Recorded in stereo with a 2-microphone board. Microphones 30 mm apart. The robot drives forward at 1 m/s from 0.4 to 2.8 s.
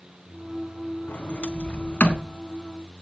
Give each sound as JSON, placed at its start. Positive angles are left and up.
{"t": 1.1, "sound": "a sliding door", "side_deg": 60, "distance_m": 2.0}